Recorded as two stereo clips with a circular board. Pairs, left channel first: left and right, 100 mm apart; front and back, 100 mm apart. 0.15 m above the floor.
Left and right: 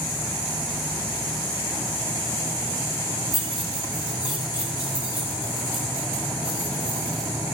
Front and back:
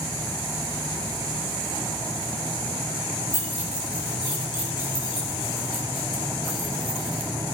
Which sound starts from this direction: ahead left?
Keys jangling, at 3.3 s.